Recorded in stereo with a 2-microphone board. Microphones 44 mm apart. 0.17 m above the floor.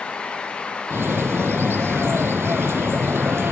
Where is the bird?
80° right, 1.5 m.